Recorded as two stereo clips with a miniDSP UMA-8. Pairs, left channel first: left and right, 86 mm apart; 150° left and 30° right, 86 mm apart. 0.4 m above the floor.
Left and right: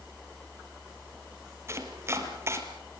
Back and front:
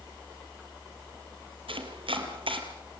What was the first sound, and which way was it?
Chopping, 30° right.